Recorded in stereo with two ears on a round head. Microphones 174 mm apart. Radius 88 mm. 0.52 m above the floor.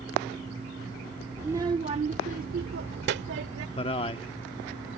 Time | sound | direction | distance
1.4 | a child speaking | 10° right (ahead or behind) | ?
3.8 | a man speaking | 30° left (ahead or behind) | ?